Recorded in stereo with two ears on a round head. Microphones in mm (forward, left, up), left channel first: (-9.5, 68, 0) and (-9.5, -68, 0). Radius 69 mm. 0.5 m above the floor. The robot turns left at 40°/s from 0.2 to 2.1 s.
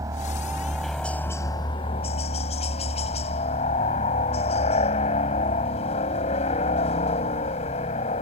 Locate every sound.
0.0 s a helicopter: 155° right; by 8.2 s 130° left